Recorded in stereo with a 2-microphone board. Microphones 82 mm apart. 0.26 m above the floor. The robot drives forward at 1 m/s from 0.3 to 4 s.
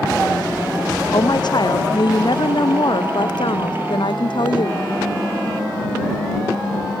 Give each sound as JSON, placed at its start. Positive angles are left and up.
{"t": 1.1, "sound": "a woman speaking", "side_deg": 60}